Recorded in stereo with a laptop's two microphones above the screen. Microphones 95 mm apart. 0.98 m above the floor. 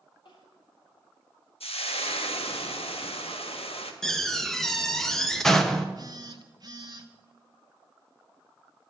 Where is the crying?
55° left (ahead or behind), 3 m.